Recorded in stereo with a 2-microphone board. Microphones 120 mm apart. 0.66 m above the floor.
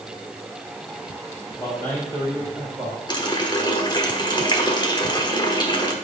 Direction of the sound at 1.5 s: 25° left (ahead or behind).